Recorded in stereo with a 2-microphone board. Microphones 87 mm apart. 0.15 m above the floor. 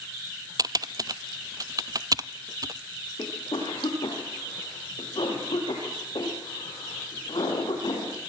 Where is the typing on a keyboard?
50° right (ahead or behind), 0.6 m.